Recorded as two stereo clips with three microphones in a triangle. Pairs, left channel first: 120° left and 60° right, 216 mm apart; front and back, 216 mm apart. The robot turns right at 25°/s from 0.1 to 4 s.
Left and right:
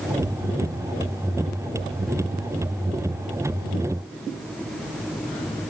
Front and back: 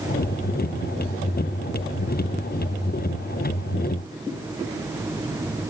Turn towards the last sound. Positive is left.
No sound to turn to.